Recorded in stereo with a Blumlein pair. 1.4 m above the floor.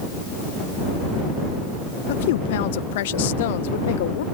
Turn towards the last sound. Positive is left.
turn(degrees=55)